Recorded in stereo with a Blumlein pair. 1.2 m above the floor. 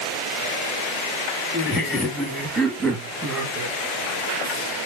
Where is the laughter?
15° left, 2.5 m; by 3.8 s 30° right, 2 m.